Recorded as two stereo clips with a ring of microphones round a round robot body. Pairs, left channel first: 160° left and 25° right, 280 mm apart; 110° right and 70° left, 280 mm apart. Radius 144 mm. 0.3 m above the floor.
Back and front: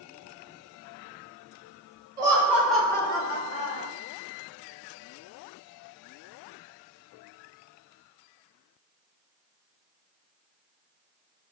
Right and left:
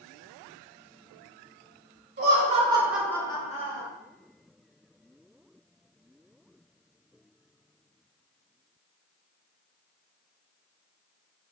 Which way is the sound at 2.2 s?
45° left.